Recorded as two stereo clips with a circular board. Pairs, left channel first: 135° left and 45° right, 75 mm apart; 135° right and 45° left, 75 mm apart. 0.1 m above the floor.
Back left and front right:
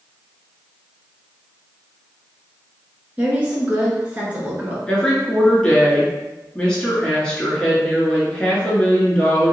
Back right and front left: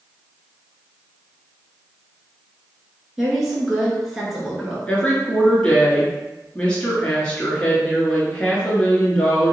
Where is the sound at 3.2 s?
40° right, 1.1 m.